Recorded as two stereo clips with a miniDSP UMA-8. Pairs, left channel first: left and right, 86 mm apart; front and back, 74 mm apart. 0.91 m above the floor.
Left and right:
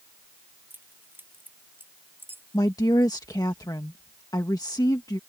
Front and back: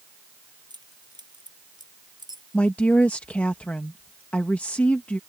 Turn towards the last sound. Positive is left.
turn(degrees=65)